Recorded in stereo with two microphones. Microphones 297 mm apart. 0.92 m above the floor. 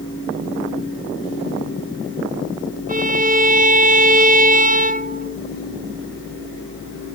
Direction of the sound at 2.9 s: 30° right (ahead or behind).